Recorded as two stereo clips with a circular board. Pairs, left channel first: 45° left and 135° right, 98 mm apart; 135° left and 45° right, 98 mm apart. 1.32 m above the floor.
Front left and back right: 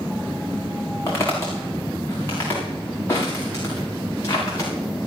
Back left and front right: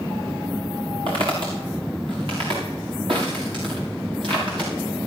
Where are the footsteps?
15° right, 5.5 m.